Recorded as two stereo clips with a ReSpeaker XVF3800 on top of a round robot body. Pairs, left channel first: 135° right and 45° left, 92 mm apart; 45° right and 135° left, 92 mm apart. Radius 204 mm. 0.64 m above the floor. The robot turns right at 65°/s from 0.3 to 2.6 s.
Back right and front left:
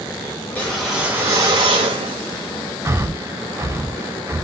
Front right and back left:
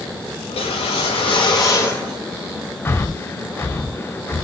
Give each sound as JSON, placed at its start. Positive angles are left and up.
{"t": 0.5, "sound": "a whoosh", "azimuth_deg": -70, "distance_m": 0.6}
{"t": 2.9, "sound": "breathing", "azimuth_deg": 5, "distance_m": 0.7}